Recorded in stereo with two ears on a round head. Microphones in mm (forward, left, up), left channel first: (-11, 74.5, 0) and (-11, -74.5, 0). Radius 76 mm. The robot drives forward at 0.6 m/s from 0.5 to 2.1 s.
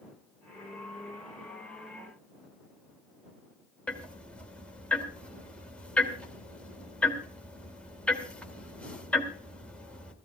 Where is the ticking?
5° left (ahead or behind), 2.5 m.